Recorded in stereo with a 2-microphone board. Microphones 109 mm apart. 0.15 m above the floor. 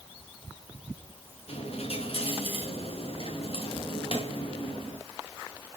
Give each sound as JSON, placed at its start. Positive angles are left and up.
{"t": 1.5, "sound": "a dropped coin", "side_deg": 60, "distance_m": 6.5}